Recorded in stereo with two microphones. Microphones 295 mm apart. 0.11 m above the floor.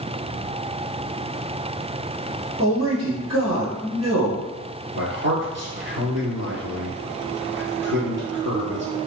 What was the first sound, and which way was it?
A man speaking, 55° right (ahead or behind).